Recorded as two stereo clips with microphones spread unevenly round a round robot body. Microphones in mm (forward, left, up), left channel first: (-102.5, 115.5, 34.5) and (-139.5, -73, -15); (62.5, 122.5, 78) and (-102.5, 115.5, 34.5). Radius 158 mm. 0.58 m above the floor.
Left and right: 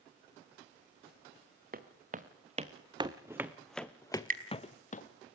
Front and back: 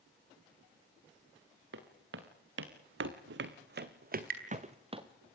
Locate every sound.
1.7 s footsteps: 145° right, 3 m; by 5.0 s 120° left, 2.5 m
4.1 s dripping: 145° right, 4 m